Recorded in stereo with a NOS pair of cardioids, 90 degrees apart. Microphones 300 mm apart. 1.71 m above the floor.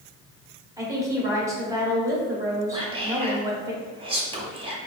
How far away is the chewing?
I don't hear chewing.